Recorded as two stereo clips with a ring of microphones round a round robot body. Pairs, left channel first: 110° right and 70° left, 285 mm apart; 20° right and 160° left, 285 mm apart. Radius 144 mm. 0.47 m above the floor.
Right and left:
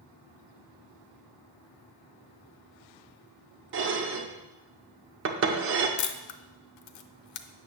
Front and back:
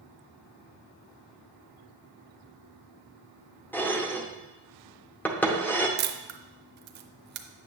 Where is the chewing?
No chewing in this recording.